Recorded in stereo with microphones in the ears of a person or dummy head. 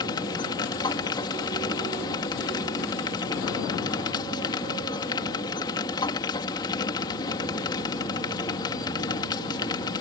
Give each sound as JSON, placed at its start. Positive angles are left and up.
{"t": 0.0, "sound": "a machine running", "side_deg": 20}